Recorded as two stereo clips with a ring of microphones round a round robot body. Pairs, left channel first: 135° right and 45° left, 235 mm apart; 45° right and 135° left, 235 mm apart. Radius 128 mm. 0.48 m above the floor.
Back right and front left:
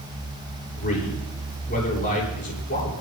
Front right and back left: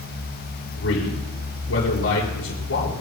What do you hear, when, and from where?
0.8 s a man speaking: 80° right, 8 m